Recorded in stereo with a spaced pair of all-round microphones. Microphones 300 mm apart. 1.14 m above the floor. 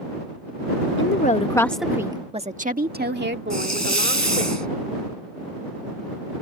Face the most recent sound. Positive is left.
turn(degrees=-65)  # may be behind; listen again after turning